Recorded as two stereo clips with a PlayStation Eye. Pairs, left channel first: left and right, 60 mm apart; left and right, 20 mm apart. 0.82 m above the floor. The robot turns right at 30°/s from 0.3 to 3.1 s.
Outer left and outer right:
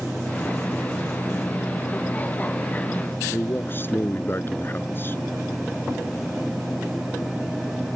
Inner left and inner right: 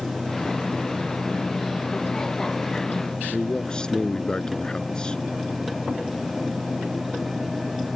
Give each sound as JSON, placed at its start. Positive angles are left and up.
{"t": 3.3, "sound": "a man speaking", "side_deg": 40}